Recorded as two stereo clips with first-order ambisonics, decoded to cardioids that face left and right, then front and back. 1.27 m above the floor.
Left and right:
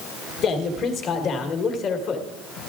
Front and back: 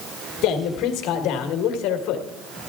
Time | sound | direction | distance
0.4 | a man speaking | 35° left | 1.5 m